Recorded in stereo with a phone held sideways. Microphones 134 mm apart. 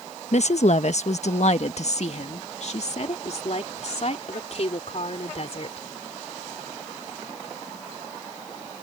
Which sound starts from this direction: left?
A woman speaking, at 0.3 s.